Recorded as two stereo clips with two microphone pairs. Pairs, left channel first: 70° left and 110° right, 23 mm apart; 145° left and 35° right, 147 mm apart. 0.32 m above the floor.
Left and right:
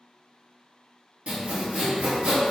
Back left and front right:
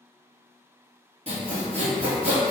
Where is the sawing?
80° right, 1.1 m.